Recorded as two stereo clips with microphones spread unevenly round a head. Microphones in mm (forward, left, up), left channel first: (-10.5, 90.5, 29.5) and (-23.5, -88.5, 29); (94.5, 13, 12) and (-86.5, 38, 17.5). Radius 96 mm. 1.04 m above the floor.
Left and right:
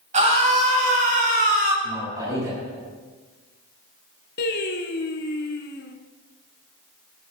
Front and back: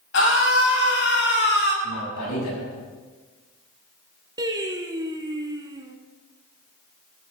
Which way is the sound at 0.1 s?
40° right.